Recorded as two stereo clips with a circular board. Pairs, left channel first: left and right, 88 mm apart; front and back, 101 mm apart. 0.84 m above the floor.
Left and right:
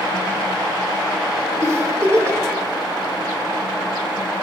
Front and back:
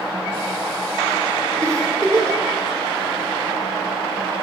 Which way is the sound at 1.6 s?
135° right.